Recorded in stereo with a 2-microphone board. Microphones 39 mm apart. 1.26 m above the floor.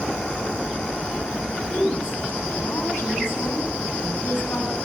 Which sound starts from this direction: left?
A woman speaking, at 1.7 s.